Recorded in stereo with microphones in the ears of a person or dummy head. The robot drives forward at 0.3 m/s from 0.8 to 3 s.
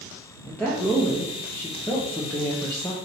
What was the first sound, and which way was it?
A woman speaking, 10° left (ahead or behind).